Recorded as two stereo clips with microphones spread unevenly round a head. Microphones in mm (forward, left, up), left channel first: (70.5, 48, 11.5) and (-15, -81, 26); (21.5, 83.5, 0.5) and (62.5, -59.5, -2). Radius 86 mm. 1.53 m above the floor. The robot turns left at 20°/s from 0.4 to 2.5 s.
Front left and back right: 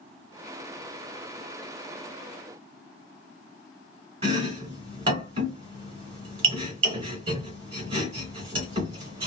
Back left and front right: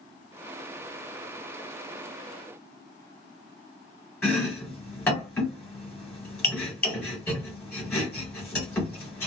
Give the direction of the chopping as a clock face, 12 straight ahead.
6 o'clock.